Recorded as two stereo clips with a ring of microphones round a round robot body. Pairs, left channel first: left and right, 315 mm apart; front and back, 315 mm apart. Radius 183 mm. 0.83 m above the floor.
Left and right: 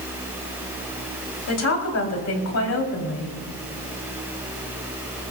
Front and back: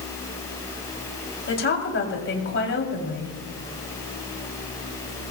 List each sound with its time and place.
1.5 s a woman speaking: 50° left, 4.5 m